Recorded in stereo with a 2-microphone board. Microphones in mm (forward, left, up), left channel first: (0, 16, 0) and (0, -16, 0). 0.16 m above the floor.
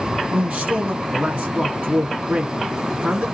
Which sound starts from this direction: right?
A man speaking, at 0.3 s.